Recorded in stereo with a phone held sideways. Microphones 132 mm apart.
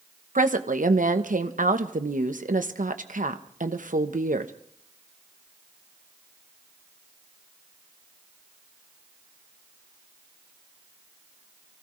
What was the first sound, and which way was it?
A woman speaking, 85° right.